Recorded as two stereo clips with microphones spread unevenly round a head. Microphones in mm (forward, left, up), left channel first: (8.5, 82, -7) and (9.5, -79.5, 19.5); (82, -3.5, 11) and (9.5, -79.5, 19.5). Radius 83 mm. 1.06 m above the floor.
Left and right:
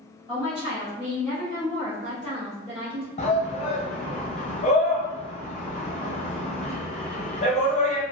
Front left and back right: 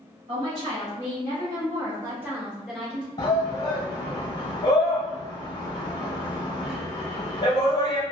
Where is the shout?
80° left, 0.9 m.